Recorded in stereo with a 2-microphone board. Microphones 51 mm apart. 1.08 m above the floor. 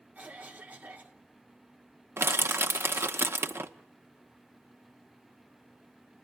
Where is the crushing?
55° right (ahead or behind), 0.9 m.